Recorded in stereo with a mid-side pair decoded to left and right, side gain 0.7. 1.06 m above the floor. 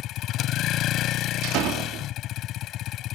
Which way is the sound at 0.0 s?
50° left.